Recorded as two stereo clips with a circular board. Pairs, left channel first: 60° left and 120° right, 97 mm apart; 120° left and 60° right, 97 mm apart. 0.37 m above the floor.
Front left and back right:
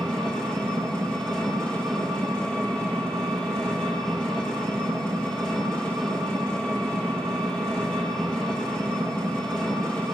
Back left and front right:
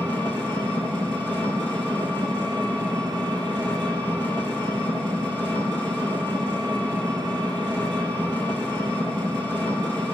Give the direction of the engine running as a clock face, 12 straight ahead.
1 o'clock.